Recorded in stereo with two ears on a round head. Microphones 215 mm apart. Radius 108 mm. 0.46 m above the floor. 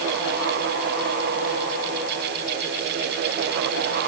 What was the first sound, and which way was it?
Only background noise.